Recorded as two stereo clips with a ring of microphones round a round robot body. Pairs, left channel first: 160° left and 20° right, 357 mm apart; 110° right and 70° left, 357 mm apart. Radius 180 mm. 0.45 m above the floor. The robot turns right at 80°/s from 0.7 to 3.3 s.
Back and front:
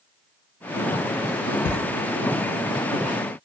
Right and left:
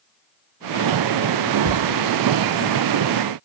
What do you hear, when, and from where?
1.6 s footsteps: 165° left, 0.6 m; by 1.8 s straight behind, 0.6 m